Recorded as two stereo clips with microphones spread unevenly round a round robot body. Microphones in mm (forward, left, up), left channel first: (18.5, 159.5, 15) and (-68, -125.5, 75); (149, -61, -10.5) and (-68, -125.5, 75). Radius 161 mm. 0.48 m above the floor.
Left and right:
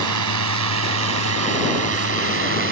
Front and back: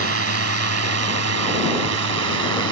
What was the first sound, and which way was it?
A drone, 135° right.